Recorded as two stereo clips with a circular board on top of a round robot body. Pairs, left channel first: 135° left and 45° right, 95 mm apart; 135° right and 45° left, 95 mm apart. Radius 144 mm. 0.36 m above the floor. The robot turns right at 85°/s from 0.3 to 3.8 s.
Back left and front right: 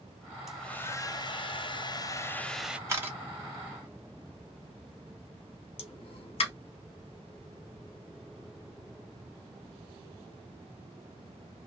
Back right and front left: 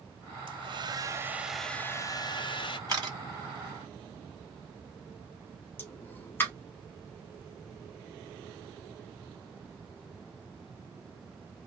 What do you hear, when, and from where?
0.5 s a hair dryer: 40° left, 0.6 m; by 2.8 s 125° right, 0.6 m
2.9 s a camera shutter: 5° left, 1.7 m; by 3.2 s 30° left, 1.7 m
5.8 s a pop: 155° left, 0.6 m